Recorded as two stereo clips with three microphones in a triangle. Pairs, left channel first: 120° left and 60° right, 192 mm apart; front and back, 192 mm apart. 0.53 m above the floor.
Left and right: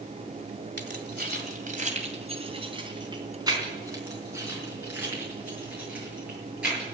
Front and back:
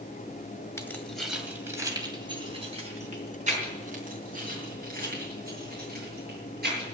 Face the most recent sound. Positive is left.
turn(degrees=-145)